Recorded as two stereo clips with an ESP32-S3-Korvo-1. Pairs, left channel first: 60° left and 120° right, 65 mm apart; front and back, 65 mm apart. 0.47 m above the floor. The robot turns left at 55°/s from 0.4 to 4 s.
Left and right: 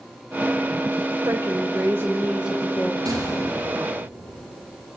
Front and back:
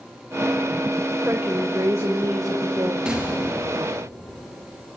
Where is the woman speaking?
125° right, 1.6 m; by 3.0 s 140° left, 1.6 m.